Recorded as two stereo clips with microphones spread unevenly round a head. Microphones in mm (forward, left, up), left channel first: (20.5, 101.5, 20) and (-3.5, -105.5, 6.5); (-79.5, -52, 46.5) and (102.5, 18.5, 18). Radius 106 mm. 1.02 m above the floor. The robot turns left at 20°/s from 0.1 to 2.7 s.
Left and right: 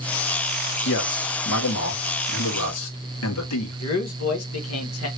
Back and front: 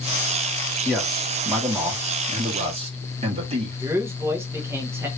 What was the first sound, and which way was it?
A man speaking, 115° left.